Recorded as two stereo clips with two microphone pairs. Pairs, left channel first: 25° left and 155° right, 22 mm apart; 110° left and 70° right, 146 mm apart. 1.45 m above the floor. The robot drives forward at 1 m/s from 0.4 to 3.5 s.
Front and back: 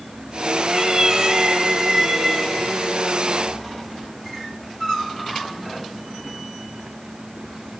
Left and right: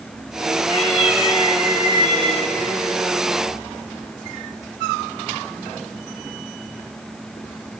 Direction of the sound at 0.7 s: 140° left.